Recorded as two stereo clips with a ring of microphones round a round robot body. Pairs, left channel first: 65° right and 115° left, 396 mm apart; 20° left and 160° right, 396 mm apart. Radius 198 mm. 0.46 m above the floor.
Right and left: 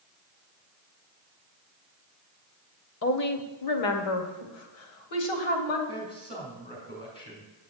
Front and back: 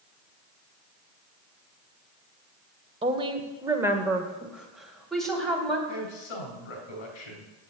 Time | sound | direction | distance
3.0 | a woman speaking | 90° right | 1.0 m
5.9 | a man speaking | 10° left | 3.5 m